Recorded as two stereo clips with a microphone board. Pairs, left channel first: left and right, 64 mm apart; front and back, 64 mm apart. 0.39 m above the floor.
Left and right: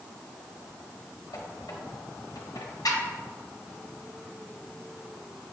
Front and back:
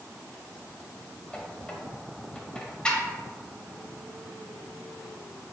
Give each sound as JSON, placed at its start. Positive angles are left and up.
{"t": 1.3, "sound": "a squeak", "azimuth_deg": 75, "distance_m": 0.5}